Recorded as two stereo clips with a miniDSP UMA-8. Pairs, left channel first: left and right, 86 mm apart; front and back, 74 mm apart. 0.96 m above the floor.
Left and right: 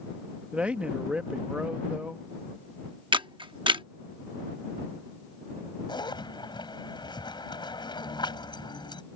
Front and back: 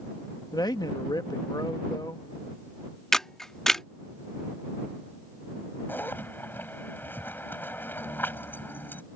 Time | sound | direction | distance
0.5 | a man speaking | 15° right | ?
3.1 | a camera shutter | 85° right | ?
5.9 | a zipper | 60° left | ?